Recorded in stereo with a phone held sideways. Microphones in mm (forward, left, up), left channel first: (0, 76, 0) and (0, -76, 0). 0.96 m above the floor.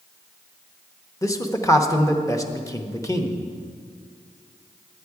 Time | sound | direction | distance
1.2 | a man speaking | 20° left (ahead or behind) | 0.8 m